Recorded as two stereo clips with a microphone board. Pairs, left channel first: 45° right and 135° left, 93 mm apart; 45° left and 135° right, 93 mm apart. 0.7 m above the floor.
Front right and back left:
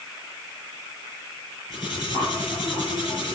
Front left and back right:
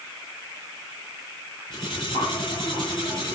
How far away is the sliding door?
I don't hear a sliding door.